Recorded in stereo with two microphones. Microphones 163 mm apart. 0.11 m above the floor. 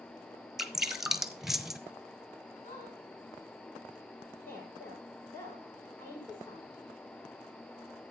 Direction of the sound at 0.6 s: Centre (ahead or behind).